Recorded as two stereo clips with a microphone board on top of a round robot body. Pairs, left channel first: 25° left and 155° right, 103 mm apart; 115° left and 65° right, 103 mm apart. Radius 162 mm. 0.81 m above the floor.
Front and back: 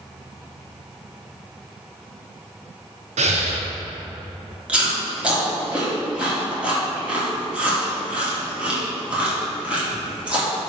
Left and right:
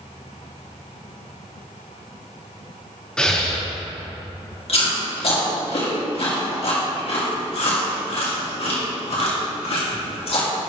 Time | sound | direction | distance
3.2 | breathing | 165° right | 0.9 m
4.7 | chewing | 125° left | 2.5 m